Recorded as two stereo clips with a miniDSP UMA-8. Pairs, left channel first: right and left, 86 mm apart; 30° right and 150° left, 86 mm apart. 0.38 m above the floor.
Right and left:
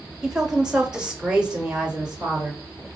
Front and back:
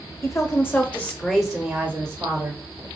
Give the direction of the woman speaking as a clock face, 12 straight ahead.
12 o'clock.